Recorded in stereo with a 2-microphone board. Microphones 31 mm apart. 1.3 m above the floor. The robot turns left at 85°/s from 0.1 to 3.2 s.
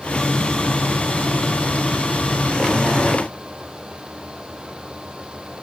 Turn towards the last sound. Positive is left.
No sound to turn to.